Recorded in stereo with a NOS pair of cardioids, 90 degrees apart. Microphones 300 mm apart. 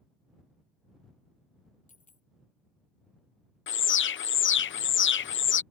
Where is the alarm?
40° left.